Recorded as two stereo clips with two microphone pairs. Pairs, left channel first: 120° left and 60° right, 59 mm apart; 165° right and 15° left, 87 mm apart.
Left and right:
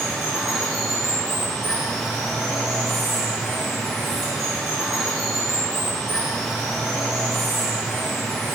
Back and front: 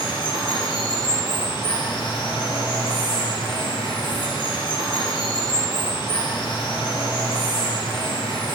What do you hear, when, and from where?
0.0 s running water: 150° right, 1.8 m